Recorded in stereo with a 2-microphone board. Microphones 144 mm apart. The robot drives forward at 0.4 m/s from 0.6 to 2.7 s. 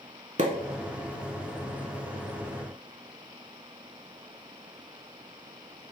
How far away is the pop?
About 0.5 m.